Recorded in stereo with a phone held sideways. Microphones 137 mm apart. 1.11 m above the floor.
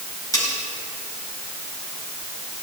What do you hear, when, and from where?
0.3 s cutlery clinking: 25° left (ahead or behind), 4.5 m